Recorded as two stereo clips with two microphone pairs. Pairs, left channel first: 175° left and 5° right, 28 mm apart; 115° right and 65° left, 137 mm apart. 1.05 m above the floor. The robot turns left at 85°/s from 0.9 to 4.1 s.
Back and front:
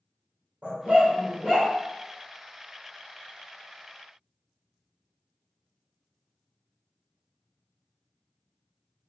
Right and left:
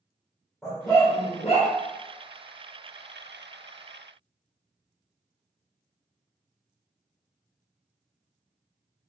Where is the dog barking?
20° right, 1.6 m; by 1.7 s 90° right, 1.6 m.